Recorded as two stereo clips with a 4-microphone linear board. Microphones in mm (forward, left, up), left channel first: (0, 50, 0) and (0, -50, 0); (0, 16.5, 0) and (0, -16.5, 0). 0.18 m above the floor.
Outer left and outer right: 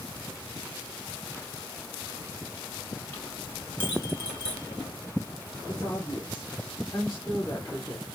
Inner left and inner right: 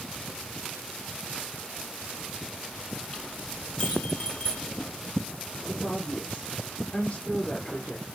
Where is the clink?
20° left (ahead or behind), 4 m.